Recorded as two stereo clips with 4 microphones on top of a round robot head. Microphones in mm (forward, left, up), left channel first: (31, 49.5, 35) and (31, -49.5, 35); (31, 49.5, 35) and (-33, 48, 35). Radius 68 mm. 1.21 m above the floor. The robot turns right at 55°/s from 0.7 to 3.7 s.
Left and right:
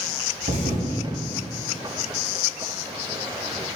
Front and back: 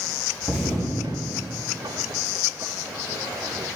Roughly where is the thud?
Right.